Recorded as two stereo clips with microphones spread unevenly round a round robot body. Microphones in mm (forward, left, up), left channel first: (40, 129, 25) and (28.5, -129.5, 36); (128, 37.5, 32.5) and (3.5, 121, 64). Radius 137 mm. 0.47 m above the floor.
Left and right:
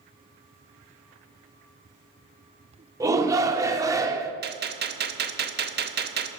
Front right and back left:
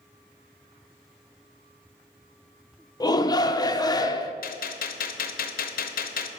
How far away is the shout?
About 0.8 m.